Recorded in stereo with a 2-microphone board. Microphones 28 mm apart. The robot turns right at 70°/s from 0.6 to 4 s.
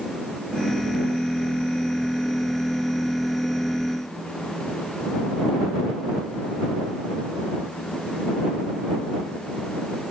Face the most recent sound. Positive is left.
No sound to turn to.